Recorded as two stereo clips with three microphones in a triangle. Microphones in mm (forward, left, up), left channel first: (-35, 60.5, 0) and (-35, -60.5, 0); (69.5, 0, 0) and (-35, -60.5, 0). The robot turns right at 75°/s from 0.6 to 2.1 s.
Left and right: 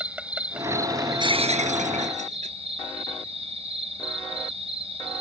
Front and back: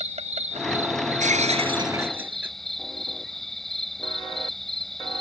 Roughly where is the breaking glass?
Behind right.